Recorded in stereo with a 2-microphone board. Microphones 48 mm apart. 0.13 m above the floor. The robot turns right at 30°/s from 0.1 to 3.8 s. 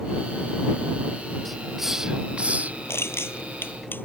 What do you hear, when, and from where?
1.4 s a hiss: 5° left (ahead or behind); by 2.8 s 35° right (ahead or behind)
2.9 s crushing: 65° left (ahead or behind); by 4.0 s 45° left (ahead or behind)